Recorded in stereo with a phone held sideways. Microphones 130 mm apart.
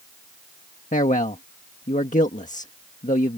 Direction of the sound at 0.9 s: 75° left (ahead or behind).